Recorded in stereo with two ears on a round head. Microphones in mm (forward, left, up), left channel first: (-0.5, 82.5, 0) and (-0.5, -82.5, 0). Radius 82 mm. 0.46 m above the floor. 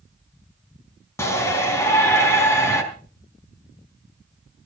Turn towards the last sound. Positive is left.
turn(degrees=15)  # may be behind; listen again after turning